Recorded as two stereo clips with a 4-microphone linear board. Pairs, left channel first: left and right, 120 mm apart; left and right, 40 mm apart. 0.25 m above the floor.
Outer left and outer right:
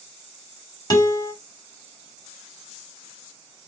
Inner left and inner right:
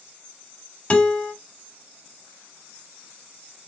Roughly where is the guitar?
Left.